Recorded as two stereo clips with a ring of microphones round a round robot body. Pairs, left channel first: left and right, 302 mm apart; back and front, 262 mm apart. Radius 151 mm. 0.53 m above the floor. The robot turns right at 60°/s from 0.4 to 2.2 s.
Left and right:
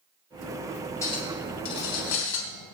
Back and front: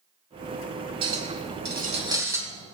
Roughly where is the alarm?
No alarm in this recording.